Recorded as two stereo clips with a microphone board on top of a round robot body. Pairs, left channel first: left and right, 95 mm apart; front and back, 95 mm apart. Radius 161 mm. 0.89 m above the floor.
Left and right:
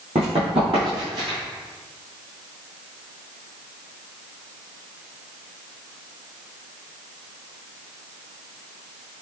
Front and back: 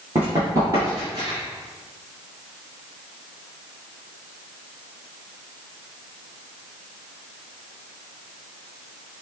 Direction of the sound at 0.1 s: 110° right.